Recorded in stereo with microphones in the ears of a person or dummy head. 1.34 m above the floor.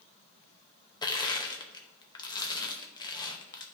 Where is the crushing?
20° left (ahead or behind), 0.6 m.